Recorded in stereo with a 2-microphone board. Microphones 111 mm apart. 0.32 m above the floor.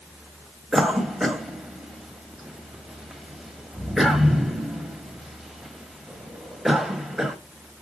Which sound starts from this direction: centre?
A cough, at 0.7 s.